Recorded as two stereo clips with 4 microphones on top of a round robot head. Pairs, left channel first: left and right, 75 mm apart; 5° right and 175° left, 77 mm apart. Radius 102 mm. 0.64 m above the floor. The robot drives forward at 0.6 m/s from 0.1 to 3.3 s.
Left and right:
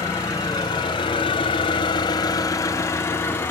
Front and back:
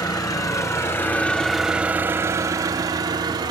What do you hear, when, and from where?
0.0 s an engine running: 30° left, 1.1 m; by 3.5 s 150° left, 1.2 m